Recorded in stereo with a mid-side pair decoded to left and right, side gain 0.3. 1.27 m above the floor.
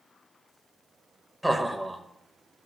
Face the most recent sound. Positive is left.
turn(degrees=-5)